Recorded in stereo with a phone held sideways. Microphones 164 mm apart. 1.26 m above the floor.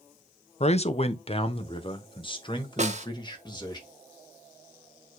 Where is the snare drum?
45° right (ahead or behind), 1.2 m.